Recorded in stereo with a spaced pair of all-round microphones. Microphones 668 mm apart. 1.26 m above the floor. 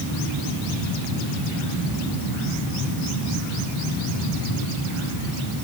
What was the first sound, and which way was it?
Only background noise.